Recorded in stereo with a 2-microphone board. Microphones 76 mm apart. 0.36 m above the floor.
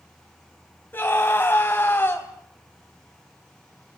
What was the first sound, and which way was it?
A scream, 25° left (ahead or behind).